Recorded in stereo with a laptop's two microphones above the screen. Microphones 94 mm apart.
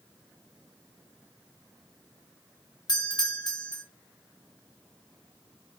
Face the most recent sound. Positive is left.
turn(degrees=50)  # may be behind; listen again after turning